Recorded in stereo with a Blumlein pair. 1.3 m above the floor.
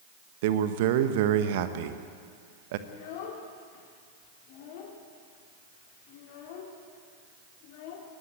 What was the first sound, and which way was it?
A man speaking, 50° right.